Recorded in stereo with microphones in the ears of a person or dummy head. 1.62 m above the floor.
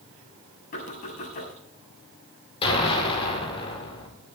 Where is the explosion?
30° left (ahead or behind), 4.5 m.